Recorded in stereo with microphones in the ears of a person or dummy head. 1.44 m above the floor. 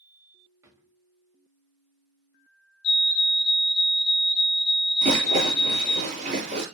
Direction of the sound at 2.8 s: 50° left (ahead or behind).